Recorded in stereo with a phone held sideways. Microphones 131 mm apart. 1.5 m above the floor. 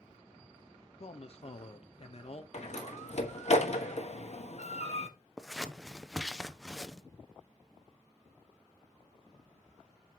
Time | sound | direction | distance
1.0 | a man speaking | 50° left (ahead or behind) | 0.9 m
2.5 | a door slam | 55° left (ahead or behind) | 1.2 m
5.4 | scissors | centre (ahead or behind) | 0.6 m